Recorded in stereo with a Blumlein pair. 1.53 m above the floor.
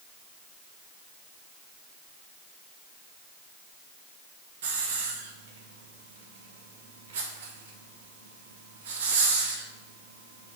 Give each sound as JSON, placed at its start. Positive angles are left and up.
{"t": 4.6, "sound": "a hiss", "azimuth_deg": -60, "distance_m": 1.2}